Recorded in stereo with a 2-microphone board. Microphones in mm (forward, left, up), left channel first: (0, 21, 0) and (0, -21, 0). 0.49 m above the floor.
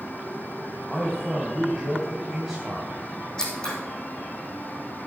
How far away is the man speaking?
About 3 m.